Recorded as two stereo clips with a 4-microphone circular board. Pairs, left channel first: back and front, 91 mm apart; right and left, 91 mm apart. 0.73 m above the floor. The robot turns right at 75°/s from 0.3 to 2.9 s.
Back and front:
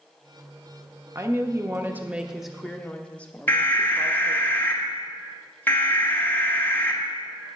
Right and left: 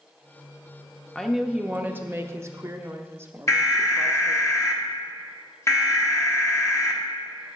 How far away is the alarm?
About 1.2 m.